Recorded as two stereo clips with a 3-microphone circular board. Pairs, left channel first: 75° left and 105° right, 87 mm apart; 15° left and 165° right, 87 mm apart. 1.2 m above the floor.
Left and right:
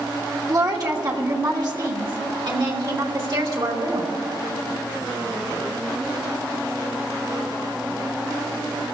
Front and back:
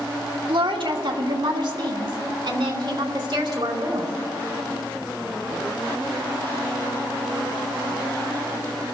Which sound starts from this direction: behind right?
A woman speaking, at 0.5 s.